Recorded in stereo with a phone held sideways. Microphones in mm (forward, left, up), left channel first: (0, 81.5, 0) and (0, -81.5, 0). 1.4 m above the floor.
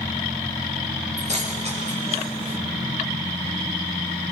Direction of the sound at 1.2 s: 45° right (ahead or behind).